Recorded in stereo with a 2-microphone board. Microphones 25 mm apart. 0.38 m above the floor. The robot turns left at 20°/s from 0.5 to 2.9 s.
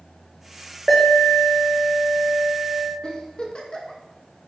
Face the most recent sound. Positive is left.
turn(degrees=30)  # may be behind; listen again after turning